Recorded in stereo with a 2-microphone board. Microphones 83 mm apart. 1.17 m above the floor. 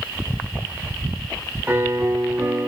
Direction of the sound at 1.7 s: 25° right (ahead or behind).